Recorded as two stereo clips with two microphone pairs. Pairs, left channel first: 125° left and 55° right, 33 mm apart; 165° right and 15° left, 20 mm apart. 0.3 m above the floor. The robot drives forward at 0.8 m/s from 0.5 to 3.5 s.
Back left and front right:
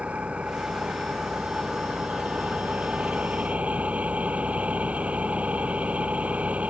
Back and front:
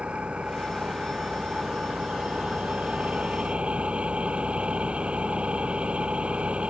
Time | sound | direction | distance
0.0 | an engine running | 5° right | ?